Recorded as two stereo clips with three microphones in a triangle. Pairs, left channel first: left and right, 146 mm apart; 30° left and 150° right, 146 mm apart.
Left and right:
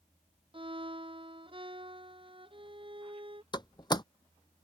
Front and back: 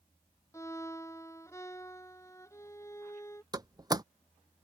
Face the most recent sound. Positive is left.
turn(degrees=150)